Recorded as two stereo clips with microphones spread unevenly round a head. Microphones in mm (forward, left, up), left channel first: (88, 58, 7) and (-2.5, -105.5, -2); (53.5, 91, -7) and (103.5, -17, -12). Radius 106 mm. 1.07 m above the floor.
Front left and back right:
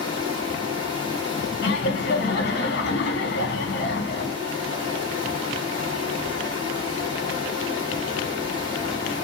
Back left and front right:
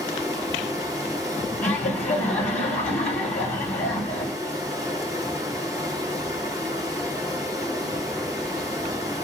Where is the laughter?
105° left, 1.3 m.